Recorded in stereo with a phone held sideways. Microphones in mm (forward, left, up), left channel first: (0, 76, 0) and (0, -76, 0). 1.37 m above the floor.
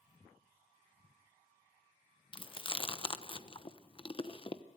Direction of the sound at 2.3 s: 30° left (ahead or behind).